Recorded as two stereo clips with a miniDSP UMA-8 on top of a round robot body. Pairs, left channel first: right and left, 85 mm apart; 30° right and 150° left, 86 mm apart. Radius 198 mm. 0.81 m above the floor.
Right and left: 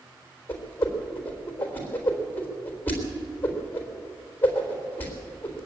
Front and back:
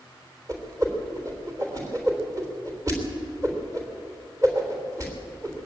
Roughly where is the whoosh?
Behind right.